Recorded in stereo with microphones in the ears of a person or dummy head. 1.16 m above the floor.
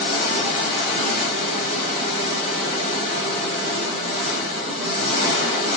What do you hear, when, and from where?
0.0 s an engine running: 35° right (ahead or behind), 1.4 m